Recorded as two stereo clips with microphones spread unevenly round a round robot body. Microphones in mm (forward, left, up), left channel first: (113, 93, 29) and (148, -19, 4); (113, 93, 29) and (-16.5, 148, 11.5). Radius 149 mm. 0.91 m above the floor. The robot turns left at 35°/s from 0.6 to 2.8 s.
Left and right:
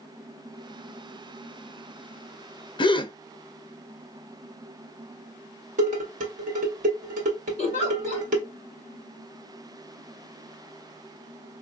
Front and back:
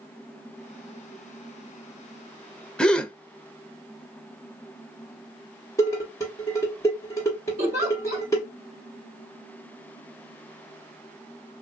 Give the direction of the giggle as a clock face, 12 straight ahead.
6 o'clock.